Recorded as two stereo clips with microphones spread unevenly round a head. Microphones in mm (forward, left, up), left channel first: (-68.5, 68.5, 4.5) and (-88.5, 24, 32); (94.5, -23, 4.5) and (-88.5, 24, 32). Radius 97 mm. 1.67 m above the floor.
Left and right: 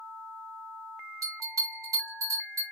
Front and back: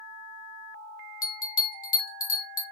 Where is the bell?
65° right, 1.0 m.